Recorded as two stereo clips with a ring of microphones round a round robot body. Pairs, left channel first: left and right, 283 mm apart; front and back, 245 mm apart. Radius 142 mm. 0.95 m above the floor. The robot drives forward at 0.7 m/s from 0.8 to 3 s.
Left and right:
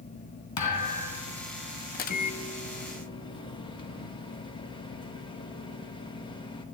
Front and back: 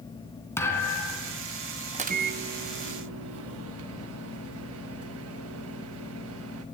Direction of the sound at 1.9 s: 130° left.